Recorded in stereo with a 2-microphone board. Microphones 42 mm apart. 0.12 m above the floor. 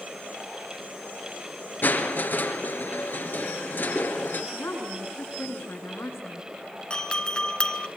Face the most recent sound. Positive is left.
turn(degrees=20)  # may be behind; listen again after turning